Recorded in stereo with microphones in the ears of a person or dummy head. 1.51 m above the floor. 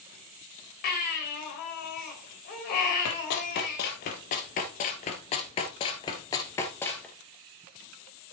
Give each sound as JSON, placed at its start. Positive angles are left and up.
{"t": 0.8, "sound": "a baby crying", "side_deg": 50, "distance_m": 3.5}
{"t": 3.0, "sound": "running footsteps", "side_deg": 60, "distance_m": 3.0}